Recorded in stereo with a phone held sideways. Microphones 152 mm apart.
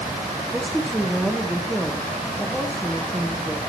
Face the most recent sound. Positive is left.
turn(degrees=0)  # may be behind; listen again after turning